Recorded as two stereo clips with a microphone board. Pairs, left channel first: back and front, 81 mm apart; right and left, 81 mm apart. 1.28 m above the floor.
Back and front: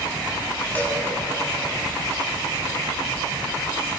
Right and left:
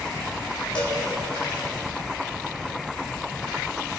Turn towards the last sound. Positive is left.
turn(degrees=-110)